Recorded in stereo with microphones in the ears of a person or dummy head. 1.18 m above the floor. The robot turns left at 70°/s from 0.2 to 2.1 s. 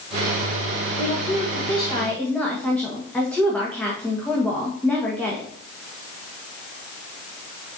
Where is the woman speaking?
85° left, 1.6 m; by 5.5 s 5° left, 1.6 m.